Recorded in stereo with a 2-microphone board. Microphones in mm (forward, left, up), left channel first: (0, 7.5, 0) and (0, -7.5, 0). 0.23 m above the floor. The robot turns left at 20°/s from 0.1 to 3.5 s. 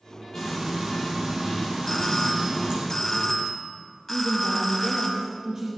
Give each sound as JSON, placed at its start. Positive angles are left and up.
{"t": 0.3, "sound": "frying", "azimuth_deg": -35, "distance_m": 5.0}
{"t": 1.9, "sound": "a doorbell", "side_deg": 25, "distance_m": 2.0}
{"t": 4.1, "sound": "a woman speaking", "side_deg": -40, "distance_m": 3.5}